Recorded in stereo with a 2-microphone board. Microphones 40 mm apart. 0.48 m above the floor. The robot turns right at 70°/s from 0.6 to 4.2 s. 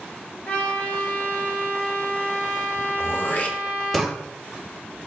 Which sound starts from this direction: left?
Throat clearing, at 3.0 s.